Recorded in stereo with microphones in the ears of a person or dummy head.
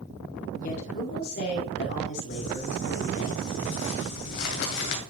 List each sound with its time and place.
0.6 s a woman speaking: 50° left (ahead or behind), 2.5 m; by 3.3 s 75° left (ahead or behind), 3.5 m
2.3 s crumpling: 60° left (ahead or behind), 2 m